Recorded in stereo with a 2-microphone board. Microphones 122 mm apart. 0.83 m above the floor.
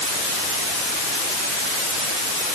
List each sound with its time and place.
Only background noise.